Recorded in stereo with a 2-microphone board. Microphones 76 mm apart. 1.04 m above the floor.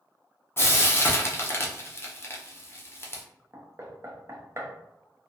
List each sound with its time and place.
0.6 s frying: 35° left (ahead or behind), 0.5 m
3.5 s knocking: 35° right (ahead or behind), 0.5 m